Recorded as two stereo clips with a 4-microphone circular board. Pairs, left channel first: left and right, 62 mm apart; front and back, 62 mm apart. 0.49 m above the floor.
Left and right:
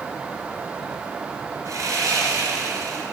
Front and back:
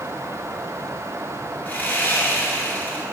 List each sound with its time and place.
1.6 s sawing: 60° right, 2 m